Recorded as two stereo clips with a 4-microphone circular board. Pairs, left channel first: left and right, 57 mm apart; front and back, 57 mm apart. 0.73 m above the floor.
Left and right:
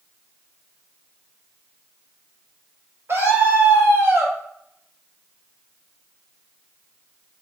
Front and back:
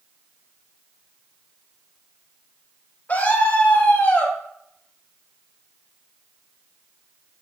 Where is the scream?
50° right, 3.5 m.